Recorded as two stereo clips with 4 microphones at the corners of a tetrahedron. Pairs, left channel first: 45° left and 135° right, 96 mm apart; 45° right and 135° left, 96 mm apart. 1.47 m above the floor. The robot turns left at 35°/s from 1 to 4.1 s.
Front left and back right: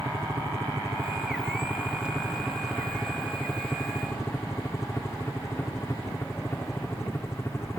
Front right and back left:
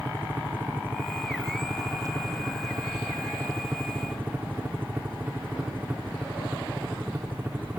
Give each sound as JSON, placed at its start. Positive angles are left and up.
{"t": 0.0, "sound": "a helicopter", "azimuth_deg": -170}